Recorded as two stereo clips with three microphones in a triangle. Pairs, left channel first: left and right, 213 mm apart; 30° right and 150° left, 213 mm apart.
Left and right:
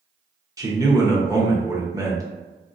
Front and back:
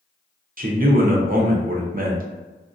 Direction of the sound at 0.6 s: 165° right.